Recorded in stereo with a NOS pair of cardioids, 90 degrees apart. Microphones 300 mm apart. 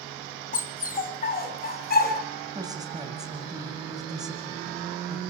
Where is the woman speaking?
15° right, 8 m.